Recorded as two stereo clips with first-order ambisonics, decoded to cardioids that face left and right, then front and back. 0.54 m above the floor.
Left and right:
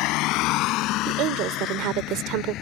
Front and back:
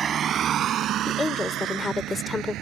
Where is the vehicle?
115° left; by 2.6 s 135° left.